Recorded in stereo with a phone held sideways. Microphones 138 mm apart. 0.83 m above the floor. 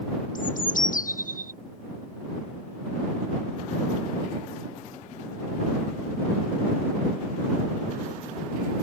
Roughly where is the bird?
Left.